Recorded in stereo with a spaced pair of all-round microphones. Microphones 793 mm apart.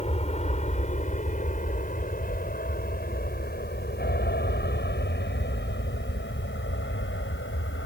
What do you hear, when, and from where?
0.0 s an aircraft: 10° left (ahead or behind); by 7.9 s 15° left (ahead or behind)